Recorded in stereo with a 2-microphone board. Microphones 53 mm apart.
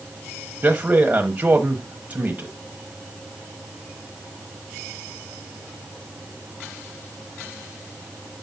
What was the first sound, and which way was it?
A man speaking, 25° right (ahead or behind).